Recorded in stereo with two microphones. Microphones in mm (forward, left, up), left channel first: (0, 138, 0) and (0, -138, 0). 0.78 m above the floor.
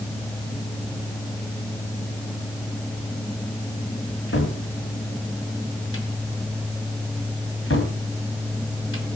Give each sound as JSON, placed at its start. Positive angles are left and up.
{"t": 4.1, "sound": "a cupboard door", "side_deg": 50, "distance_m": 2.0}